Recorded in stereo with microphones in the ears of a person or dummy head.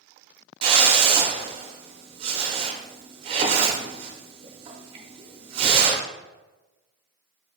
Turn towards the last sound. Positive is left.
turn(degrees=-30)  # may be behind; listen again after turning